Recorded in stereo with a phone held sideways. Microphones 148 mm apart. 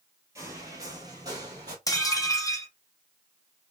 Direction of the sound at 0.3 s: 20° right (ahead or behind).